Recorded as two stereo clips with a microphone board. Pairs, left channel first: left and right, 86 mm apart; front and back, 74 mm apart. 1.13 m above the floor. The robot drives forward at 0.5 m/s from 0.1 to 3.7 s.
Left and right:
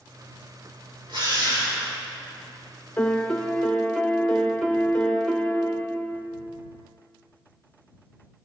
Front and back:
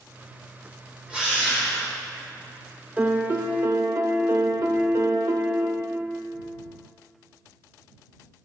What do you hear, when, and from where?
1.1 s a drill: 110° right, 3 m; by 1.9 s 115° right, 3 m
3.0 s a piano: 145° left, 0.6 m; by 6.2 s 165° left, 0.8 m